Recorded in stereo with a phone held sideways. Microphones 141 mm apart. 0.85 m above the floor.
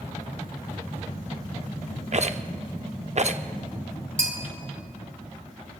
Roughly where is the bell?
Right.